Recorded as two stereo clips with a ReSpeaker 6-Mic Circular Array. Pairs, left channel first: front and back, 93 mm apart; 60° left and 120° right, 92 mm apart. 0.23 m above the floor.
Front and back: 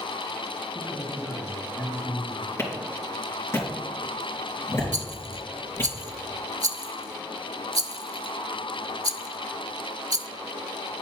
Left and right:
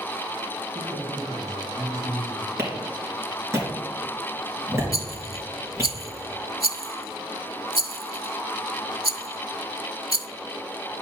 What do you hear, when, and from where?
0.8 s a man speaking: 70° right, 3 m
2.6 s a clap: 60° right, 3.5 m
4.9 s a rattle: 130° right, 0.5 m